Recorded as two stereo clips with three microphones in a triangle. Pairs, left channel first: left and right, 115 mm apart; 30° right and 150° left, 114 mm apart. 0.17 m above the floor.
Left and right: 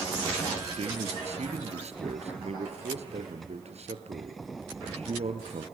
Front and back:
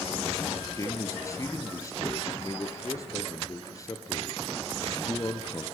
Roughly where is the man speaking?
Right.